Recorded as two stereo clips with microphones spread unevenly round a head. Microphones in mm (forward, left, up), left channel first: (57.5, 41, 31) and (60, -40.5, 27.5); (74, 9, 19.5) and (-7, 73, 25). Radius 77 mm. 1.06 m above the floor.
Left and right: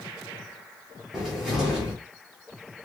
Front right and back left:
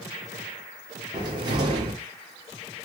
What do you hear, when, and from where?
1.1 s a cupboard door: 170° right, 1.1 m